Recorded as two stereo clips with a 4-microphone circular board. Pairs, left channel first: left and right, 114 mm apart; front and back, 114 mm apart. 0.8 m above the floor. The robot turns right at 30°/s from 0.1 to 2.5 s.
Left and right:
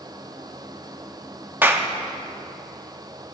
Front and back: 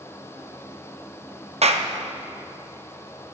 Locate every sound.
1.6 s a clap: 160° right, 0.7 m; by 1.9 s 155° right, 0.7 m